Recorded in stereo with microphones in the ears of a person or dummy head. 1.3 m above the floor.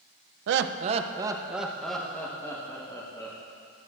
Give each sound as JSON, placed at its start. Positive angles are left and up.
{"t": 0.5, "sound": "laughter", "side_deg": -80, "distance_m": 0.6}